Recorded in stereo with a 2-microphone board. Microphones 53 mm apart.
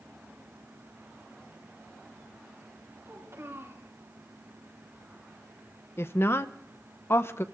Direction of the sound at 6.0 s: 50° left (ahead or behind).